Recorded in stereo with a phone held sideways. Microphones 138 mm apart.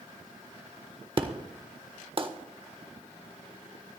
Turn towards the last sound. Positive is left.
turn(degrees=-40)  # may be behind; listen again after turning